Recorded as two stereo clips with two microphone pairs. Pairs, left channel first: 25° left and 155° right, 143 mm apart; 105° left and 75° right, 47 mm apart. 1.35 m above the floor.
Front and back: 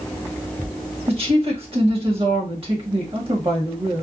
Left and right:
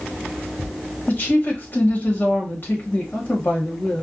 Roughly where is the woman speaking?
Behind left.